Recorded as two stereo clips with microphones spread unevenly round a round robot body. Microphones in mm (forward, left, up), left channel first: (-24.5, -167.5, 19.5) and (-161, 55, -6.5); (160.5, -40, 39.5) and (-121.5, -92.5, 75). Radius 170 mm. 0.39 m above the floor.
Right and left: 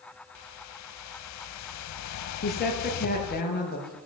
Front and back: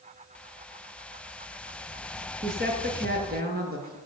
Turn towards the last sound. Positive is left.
turn(degrees=-110)